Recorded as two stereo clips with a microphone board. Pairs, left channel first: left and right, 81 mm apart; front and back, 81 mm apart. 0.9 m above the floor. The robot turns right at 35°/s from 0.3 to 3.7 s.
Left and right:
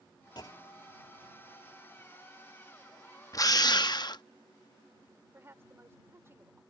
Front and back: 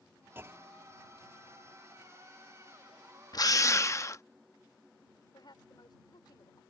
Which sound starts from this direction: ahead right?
A woman speaking, at 5.3 s.